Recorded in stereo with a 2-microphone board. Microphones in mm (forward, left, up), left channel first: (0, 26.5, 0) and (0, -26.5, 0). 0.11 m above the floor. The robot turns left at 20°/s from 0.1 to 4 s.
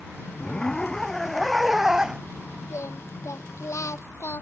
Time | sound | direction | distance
0.4 | a zipper | 25° left | ?
2.7 | singing | 65° left (ahead or behind) | ?